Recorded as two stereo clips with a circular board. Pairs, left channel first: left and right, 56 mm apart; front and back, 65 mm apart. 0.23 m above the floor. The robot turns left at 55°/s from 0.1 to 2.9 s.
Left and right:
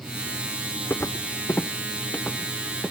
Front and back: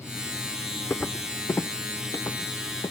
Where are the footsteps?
60° left, 0.6 m; by 2.9 s 5° right, 1.4 m.